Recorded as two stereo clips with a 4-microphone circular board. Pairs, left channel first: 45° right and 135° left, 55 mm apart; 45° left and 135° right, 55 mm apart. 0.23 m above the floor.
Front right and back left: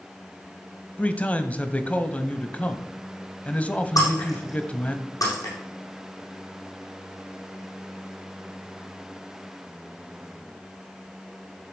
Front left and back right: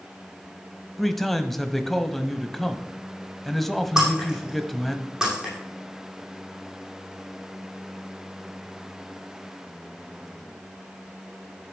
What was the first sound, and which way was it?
A man speaking, 35° right.